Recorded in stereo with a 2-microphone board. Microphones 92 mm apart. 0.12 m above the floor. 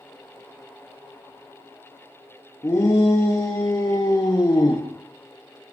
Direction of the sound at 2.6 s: 35° left (ahead or behind).